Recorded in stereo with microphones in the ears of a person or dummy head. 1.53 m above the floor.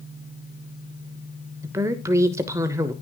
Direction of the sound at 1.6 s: 15° right (ahead or behind).